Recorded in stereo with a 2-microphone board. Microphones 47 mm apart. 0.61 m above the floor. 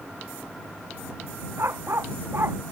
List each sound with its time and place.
1.6 s a dog barking: 60° right (ahead or behind)